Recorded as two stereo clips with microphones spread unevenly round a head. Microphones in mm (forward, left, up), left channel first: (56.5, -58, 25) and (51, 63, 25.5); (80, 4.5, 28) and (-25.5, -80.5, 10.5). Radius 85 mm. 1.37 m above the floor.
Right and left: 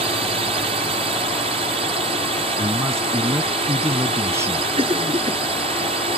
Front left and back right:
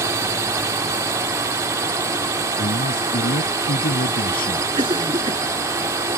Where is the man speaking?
25° left.